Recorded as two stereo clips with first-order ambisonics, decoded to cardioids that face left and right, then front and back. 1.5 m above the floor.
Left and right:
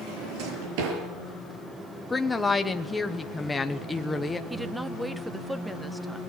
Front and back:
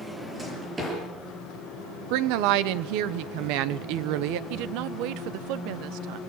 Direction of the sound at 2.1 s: 170° left.